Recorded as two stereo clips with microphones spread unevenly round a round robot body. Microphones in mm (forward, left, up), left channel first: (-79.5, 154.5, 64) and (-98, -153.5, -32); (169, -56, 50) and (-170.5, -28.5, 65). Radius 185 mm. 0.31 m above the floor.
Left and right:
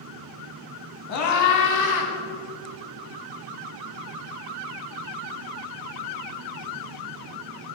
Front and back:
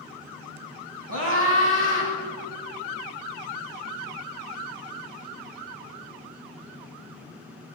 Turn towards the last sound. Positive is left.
turn(degrees=115)